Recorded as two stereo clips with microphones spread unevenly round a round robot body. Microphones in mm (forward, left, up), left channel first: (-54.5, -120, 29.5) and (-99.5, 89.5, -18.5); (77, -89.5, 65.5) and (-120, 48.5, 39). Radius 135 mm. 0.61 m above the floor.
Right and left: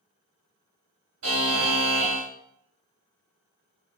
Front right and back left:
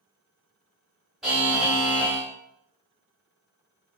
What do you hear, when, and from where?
1.2 s a buzzer: 55° left, 0.9 m